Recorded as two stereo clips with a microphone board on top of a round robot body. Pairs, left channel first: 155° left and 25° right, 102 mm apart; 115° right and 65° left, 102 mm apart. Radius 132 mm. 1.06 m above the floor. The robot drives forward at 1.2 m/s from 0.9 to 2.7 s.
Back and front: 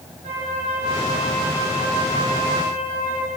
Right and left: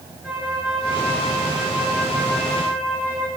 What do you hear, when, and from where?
0.2 s a flute: 20° right, 6.5 m; by 3.3 s 30° right, 4.5 m